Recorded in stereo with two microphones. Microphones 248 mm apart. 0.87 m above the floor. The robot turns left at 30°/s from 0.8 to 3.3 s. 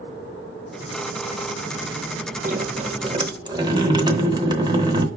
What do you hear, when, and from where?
2.4 s dripping: 35° right (ahead or behind), 0.7 m; by 5.1 s 15° right (ahead or behind), 0.7 m